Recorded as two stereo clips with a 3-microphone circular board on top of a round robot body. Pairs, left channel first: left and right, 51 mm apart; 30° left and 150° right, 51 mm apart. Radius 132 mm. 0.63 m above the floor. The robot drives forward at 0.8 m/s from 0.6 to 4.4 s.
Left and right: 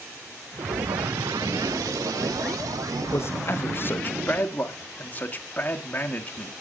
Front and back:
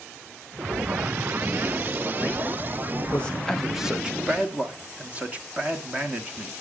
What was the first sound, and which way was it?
A man speaking, 85° left.